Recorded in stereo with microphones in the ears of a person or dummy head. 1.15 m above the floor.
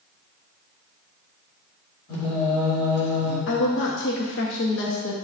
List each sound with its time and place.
2.1 s singing: 70° left (ahead or behind), 2.5 m
3.5 s a woman speaking: 60° left (ahead or behind), 0.8 m